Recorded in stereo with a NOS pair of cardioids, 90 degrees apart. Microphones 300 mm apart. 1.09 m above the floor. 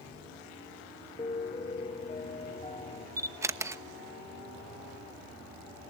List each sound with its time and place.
1.2 s a piano: 25° left, 1.4 m
3.2 s a camera shutter: 10° right, 1.1 m